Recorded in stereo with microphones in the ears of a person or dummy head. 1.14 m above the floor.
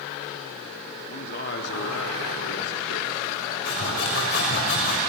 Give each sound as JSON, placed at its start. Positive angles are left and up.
{"t": 1.1, "sound": "a man speaking", "side_deg": 50, "distance_m": 3.0}
{"t": 3.6, "sound": "sawing", "side_deg": 60, "distance_m": 6.5}